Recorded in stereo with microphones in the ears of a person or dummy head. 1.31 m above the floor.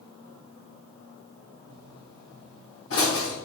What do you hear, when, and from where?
1.7 s a pop: 70° left (ahead or behind), 3 m